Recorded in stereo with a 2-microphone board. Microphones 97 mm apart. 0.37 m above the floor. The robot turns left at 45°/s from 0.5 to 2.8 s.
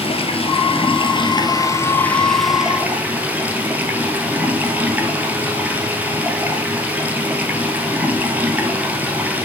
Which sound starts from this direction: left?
Running water, at 0.0 s.